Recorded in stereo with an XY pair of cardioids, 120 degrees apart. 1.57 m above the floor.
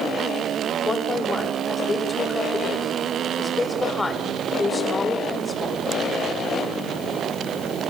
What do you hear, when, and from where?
0.8 s a woman speaking: 20° left, 7 m